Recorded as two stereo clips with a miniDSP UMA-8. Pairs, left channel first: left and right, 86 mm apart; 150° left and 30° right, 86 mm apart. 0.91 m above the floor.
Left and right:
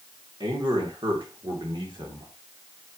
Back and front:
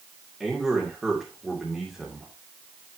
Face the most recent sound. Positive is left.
turn(degrees=-115)